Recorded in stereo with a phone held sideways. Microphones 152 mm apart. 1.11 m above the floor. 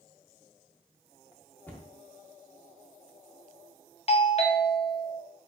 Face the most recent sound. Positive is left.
turn(degrees=40)  # may be behind; listen again after turning